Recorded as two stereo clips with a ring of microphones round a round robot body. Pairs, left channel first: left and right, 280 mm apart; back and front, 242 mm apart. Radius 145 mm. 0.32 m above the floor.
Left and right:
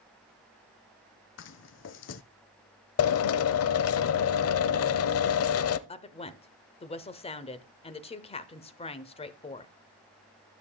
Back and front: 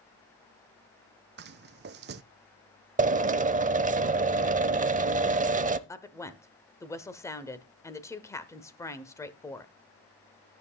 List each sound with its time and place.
1.4 s footsteps: 45° left, 0.7 m
3.0 s a drill: 55° left, 0.7 m
5.9 s a woman speaking: 120° left, 1.0 m